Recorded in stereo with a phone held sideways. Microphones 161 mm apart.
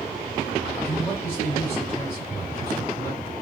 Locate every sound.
0.8 s a man speaking: 15° left (ahead or behind), 1.8 m